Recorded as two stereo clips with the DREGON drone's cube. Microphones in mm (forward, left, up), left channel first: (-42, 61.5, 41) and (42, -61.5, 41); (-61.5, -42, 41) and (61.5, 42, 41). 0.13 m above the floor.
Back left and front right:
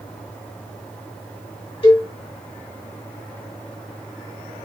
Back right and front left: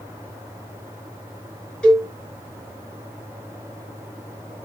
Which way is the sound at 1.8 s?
135° left.